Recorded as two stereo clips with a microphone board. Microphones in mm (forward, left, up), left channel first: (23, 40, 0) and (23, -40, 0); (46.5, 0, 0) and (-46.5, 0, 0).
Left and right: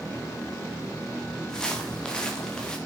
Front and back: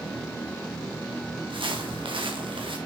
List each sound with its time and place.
1.5 s footsteps: 170° left, 5 m